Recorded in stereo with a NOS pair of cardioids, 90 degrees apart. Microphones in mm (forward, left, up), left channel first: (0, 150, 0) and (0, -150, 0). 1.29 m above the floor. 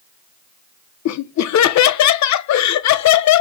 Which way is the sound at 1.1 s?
65° left.